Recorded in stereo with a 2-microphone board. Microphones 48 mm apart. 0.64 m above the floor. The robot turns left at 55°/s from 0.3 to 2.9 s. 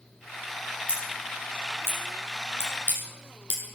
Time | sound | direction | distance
0.9 | scissors | 30° right (ahead or behind) | 6.5 m